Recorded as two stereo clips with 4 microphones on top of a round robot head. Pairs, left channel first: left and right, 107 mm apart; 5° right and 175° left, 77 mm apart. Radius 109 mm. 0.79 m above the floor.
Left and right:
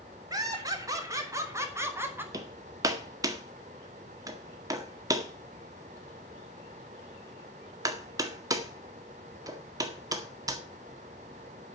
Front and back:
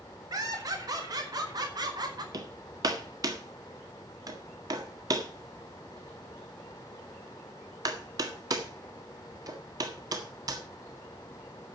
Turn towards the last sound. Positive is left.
turn(degrees=-145)